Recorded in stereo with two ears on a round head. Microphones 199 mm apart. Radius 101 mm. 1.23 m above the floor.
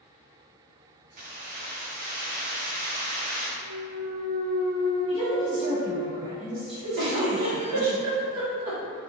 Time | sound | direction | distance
1.2 | keys jangling | 35° right (ahead or behind) | 0.6 m
3.6 | a clunk | 50° right (ahead or behind) | 1.6 m
5.1 | a woman speaking | 55° right (ahead or behind) | 1.6 m
7.0 | a giggle | 80° right | 0.9 m